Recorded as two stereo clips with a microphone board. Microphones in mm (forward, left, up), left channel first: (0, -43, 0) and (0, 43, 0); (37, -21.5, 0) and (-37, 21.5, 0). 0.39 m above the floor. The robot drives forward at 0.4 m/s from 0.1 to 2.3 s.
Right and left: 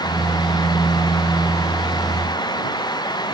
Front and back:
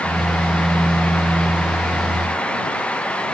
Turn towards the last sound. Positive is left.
No sound to turn to.